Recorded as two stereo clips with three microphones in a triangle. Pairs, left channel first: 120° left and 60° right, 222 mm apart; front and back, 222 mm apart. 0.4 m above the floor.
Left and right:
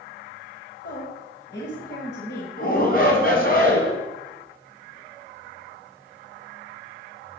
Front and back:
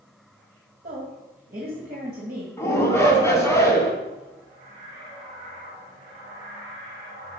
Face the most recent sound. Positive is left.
turn(degrees=75)